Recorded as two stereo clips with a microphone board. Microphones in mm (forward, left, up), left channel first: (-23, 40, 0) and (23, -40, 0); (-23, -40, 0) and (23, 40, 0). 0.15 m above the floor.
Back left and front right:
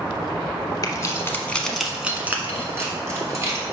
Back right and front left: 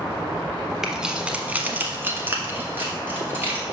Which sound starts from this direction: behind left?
Keys jangling, at 0.8 s.